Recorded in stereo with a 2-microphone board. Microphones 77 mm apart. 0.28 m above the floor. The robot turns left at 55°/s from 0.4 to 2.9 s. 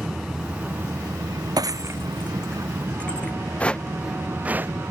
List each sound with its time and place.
0.0 s an aircraft: 10° right; by 4.9 s 145° right
1.6 s breaking glass: 60° right (ahead or behind); by 3.3 s 15° left (ahead or behind)
3.6 s footsteps: 15° left (ahead or behind); by 4.7 s 30° right (ahead or behind)